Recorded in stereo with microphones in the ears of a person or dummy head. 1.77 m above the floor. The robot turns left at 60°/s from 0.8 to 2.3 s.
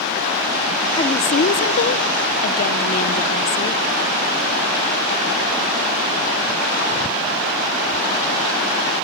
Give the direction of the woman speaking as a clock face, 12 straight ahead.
7 o'clock.